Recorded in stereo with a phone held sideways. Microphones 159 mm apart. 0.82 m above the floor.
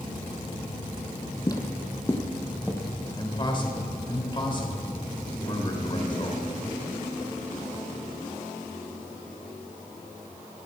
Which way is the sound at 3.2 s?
35° left (ahead or behind).